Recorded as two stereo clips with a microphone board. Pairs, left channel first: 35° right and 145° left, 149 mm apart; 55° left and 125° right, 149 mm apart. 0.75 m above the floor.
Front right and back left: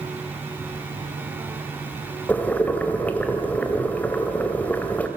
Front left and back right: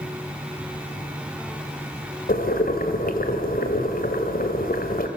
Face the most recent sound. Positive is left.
turn(degrees=45)